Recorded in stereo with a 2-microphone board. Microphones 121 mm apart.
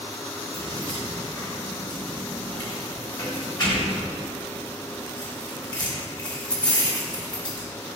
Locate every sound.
0.5 s keys jangling: 35° left (ahead or behind), 1.5 m